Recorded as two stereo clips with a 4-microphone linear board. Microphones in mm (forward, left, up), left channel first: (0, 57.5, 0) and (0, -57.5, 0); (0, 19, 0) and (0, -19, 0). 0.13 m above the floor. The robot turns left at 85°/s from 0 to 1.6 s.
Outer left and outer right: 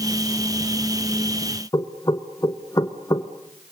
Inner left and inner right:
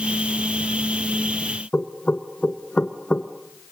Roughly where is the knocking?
Left.